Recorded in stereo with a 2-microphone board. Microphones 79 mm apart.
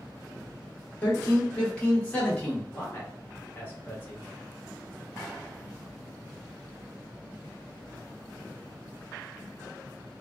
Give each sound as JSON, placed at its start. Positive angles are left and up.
{"t": 1.0, "sound": "a man speaking", "side_deg": 15, "distance_m": 1.2}
{"t": 2.7, "sound": "a man speaking", "side_deg": 30, "distance_m": 1.2}